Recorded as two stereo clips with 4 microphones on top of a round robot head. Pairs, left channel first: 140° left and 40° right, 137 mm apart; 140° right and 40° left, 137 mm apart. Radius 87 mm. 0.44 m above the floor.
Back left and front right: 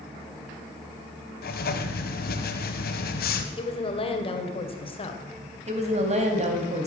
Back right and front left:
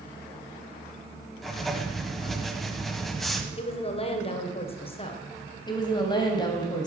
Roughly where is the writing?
Behind left.